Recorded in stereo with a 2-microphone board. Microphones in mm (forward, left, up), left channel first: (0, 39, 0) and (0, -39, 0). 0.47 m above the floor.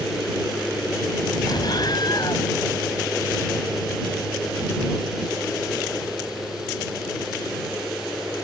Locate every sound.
1.5 s an explosion: 65° left (ahead or behind)